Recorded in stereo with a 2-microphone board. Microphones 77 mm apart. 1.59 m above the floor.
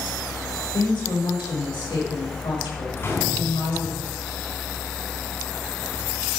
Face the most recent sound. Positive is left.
turn(degrees=35)  # may be behind; listen again after turning